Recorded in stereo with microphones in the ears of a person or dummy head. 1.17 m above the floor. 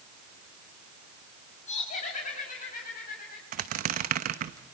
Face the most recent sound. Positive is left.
turn(degrees=-40)  # may be behind; listen again after turning